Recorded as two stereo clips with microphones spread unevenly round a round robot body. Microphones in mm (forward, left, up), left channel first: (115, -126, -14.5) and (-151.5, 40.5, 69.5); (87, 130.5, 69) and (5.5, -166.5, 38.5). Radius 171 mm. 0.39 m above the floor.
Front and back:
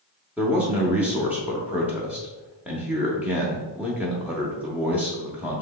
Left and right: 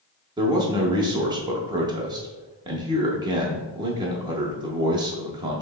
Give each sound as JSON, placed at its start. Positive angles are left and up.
{"t": 0.4, "sound": "a man speaking", "azimuth_deg": -90, "distance_m": 0.7}